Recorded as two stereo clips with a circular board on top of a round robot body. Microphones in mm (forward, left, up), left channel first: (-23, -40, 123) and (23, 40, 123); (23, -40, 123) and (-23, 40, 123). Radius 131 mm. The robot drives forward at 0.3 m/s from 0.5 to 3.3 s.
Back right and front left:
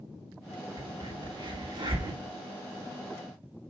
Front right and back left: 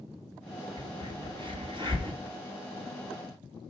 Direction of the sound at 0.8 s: 90° left.